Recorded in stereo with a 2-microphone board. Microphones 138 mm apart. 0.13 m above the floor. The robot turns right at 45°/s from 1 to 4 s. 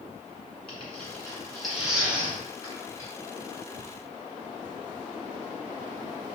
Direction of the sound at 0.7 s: 10° left (ahead or behind).